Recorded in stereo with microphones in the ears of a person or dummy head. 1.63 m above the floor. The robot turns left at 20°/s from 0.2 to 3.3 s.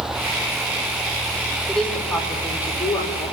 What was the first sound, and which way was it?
A woman speaking, 175° left.